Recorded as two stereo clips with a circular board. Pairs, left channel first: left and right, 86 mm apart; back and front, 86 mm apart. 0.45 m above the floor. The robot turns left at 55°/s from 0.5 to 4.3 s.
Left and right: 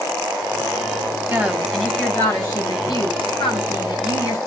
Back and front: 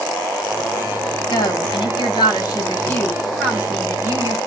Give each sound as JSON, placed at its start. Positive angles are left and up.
{"t": 1.3, "sound": "a woman speaking", "azimuth_deg": -155, "distance_m": 3.0}